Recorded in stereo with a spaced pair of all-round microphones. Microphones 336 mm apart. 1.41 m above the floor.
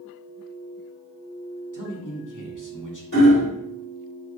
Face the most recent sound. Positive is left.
turn(degrees=75)  # may be behind; listen again after turning